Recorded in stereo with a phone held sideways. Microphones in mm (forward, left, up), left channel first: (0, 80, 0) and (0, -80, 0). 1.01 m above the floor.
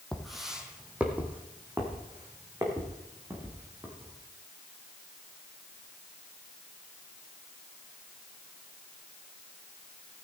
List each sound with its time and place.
0.1 s footsteps: centre (ahead or behind), 1.5 m; by 4.2 s 20° right (ahead or behind), 4 m